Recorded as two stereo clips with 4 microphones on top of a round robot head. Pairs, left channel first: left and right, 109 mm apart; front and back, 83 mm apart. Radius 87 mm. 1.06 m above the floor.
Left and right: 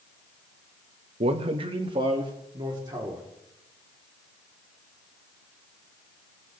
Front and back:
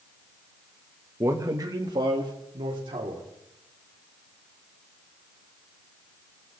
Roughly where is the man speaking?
Behind right.